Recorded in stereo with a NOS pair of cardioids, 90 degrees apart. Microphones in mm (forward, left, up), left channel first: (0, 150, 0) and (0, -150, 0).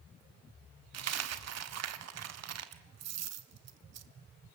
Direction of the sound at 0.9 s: 60° right.